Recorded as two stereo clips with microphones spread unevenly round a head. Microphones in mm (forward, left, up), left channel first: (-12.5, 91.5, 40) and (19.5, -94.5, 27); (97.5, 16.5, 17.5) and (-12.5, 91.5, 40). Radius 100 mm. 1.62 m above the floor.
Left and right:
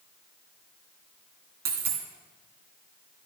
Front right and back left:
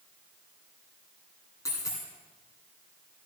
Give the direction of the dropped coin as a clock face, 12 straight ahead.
4 o'clock.